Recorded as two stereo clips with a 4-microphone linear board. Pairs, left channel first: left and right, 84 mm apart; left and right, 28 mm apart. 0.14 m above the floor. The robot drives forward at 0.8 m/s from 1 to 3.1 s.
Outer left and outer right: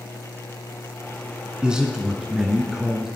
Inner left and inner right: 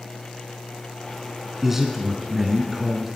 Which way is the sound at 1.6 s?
10° right (ahead or behind).